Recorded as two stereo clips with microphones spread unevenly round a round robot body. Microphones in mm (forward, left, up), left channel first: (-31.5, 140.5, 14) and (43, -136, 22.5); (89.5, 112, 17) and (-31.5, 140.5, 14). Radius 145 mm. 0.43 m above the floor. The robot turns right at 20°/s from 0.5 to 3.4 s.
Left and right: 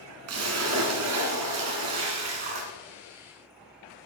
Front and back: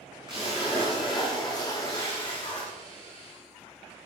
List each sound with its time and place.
0.3 s a splash: 120° right, 1.9 m; by 2.7 s 75° right, 1.9 m